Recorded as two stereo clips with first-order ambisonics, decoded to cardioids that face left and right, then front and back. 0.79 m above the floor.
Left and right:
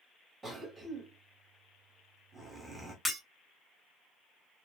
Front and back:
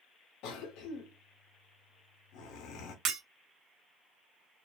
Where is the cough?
10° right, 0.7 m.